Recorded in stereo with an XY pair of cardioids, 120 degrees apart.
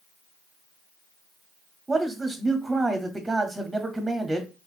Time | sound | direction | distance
1.9 | a man speaking | 15° right | 0.6 m